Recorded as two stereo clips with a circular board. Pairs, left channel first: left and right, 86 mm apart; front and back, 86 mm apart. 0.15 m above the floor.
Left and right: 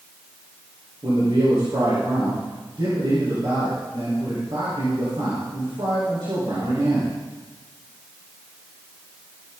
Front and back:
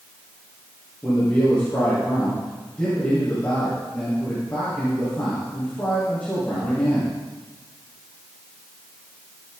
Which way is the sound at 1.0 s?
75° right.